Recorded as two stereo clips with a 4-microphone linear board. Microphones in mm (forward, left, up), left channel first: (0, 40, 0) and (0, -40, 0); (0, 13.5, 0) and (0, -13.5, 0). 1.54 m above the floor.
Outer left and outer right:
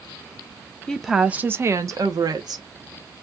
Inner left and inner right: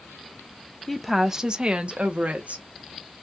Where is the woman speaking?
10° left (ahead or behind), 0.6 m; by 2.6 s 65° right (ahead or behind), 1.2 m.